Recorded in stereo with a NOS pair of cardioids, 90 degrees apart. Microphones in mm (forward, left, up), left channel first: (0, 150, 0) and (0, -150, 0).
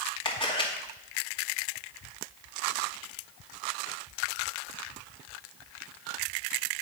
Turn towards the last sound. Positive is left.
turn(degrees=15)